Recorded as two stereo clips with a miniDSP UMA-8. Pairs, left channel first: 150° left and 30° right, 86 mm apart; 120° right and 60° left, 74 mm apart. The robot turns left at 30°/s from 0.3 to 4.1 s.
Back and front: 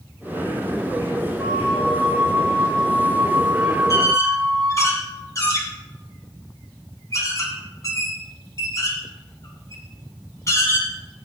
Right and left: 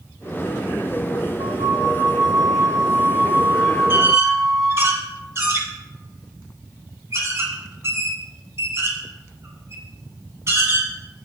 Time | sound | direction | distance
1.4 | a flute | 50° left | 0.9 m
3.9 | a squeak | 110° left | 1.9 m